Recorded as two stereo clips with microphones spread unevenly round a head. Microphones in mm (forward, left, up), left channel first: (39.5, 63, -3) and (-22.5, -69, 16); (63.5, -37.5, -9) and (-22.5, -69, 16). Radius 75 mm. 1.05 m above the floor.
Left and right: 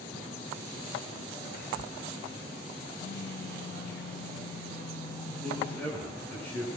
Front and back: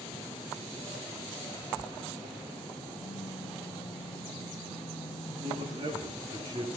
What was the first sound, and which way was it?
Whispering, 55° left.